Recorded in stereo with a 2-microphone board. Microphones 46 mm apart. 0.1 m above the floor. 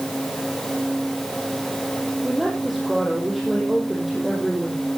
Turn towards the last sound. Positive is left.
turn(degrees=-5)  # may be behind; listen again after turning